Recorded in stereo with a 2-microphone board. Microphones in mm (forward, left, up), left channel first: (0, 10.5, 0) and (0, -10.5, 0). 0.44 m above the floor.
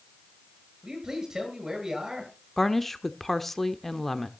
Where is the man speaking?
30° right (ahead or behind), 8 m.